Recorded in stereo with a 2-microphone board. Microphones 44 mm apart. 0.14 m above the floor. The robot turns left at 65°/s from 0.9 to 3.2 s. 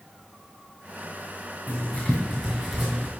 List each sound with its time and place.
1.7 s writing: 55° left (ahead or behind), 3 m; by 3.1 s 35° right (ahead or behind), 3 m